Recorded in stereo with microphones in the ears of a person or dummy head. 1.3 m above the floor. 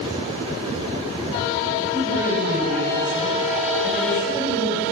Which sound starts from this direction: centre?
A woman speaking, at 1.9 s.